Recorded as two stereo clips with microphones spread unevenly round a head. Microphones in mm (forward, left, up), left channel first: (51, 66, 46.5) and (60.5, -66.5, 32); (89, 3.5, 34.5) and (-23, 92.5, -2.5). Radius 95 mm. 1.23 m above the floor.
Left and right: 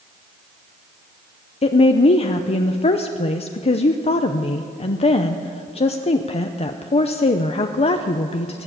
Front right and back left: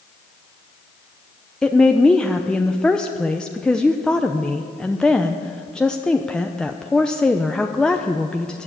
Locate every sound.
1.6 s a woman speaking: 55° left, 0.8 m